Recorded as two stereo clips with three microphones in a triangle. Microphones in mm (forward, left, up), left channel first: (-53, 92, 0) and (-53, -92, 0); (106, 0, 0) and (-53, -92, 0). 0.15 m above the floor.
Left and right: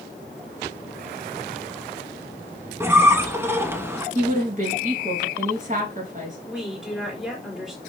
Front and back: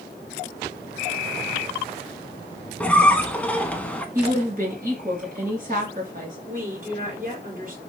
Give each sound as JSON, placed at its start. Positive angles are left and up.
{"t": 2.8, "sound": "a squeak", "azimuth_deg": -40, "distance_m": 0.6}
{"t": 4.2, "sound": "a woman speaking", "azimuth_deg": -125, "distance_m": 2.5}
{"t": 6.5, "sound": "a woman speaking", "azimuth_deg": -175, "distance_m": 2.0}